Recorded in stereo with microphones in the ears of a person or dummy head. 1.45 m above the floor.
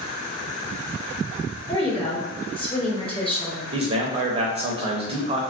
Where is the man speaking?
30° right (ahead or behind), 0.6 m.